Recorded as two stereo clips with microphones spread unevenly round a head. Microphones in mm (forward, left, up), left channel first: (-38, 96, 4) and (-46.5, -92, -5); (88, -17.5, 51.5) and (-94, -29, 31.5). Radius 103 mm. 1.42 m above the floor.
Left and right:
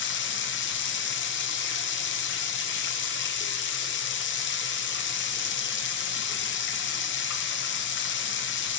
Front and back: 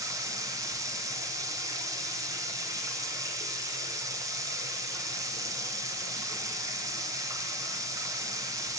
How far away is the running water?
About 0.9 m.